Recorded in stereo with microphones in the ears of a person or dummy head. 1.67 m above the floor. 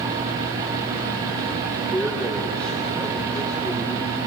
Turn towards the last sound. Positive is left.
turn(degrees=10)  # may be behind; listen again after turning